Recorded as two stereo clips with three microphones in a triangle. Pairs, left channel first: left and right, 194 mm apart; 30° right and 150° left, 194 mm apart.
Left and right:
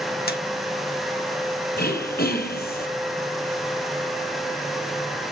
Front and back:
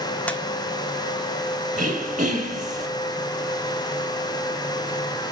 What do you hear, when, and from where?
0.3 s a squeak: 50° left, 1.1 m
1.8 s throat clearing: 105° left, 3.5 m